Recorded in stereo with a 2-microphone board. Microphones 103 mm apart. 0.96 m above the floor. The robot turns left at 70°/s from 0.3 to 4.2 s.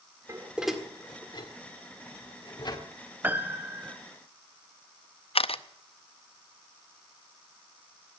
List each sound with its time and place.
0.3 s dishes clattering: 30° right (ahead or behind), 1.8 m; by 2.8 s 35° left (ahead or behind), 1.8 m
3.2 s a piano: 20° right (ahead or behind), 0.7 m; by 4.0 s 15° right (ahead or behind), 0.7 m
5.3 s a camera shutter: 65° left (ahead or behind), 0.5 m